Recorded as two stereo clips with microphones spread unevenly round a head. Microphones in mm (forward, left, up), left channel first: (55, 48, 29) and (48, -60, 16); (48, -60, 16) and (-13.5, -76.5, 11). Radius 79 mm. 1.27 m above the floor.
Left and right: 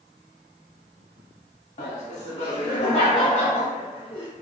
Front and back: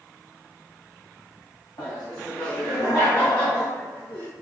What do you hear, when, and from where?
1.8 s laughter: 75° left, 1.5 m; by 4.3 s 60° left, 3.5 m